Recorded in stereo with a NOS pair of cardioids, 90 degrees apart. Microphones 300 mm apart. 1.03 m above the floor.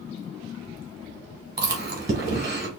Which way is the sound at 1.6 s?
35° right.